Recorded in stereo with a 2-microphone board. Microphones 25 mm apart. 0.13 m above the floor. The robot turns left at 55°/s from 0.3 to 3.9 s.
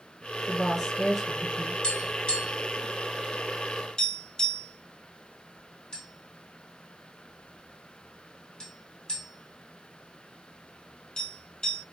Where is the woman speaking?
20° left (ahead or behind), 1.4 m; by 1.7 s 10° right (ahead or behind), 1.4 m.